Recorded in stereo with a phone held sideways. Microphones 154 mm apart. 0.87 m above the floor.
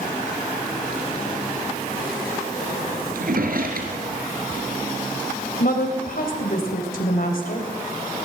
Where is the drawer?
70° right (ahead or behind), 3.5 m.